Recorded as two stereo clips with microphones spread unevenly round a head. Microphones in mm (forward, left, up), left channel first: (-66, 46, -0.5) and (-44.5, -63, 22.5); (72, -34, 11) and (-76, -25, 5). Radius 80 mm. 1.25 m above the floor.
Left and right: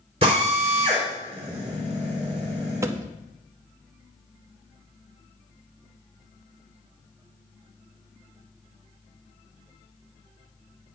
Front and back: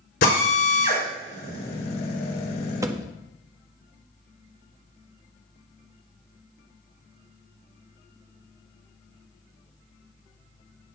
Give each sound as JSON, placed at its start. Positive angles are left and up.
{"t": 0.2, "sound": "a drill", "azimuth_deg": -20, "distance_m": 4.5}
{"t": 2.8, "sound": "a thud", "azimuth_deg": -120, "distance_m": 0.8}